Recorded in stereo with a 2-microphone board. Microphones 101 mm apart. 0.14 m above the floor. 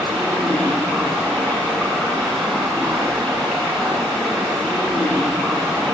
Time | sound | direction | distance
0.0 | running water | 5° left (ahead or behind) | 6.5 m